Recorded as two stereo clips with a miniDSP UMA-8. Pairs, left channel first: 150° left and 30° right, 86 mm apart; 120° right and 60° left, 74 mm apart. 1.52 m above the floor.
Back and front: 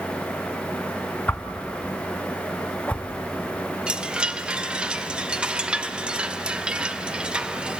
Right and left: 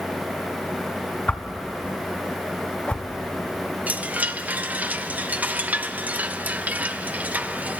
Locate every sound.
1.3 s a whoosh: 165° right, 1.0 m
3.9 s a chime: 30° left, 0.7 m